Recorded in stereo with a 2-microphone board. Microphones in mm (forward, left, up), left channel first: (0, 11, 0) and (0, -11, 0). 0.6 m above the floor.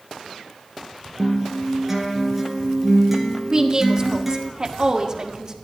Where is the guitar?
10° right (ahead or behind), 2.5 m.